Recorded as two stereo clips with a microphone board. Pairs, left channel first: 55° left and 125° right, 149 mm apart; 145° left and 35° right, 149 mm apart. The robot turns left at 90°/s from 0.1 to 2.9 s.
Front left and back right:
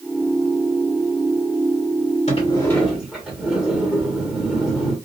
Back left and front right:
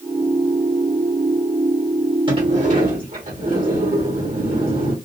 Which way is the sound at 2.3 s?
20° left.